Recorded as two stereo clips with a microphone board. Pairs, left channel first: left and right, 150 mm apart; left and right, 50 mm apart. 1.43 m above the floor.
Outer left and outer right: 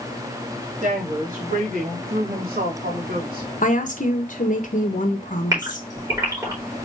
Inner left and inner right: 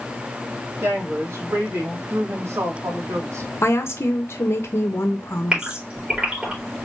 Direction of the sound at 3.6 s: 60° left (ahead or behind).